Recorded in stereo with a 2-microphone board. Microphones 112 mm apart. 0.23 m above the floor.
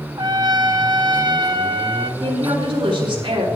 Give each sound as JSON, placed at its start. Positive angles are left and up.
{"t": 0.2, "sound": "a trumpet", "side_deg": -40, "distance_m": 0.9}
{"t": 2.2, "sound": "a woman speaking", "side_deg": -50, "distance_m": 4.5}